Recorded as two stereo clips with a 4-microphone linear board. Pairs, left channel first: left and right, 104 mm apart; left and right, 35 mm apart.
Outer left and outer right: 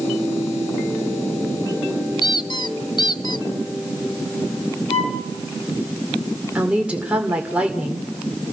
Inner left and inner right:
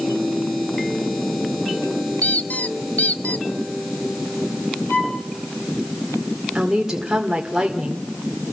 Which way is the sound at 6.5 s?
10° right (ahead or behind).